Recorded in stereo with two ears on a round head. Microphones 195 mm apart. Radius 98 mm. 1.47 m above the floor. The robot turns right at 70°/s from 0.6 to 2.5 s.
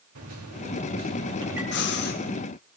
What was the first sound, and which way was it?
A microwave, 75° right.